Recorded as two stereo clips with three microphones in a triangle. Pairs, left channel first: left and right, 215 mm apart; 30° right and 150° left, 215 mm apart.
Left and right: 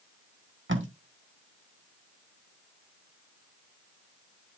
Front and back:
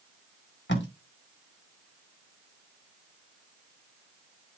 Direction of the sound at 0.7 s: 65° right.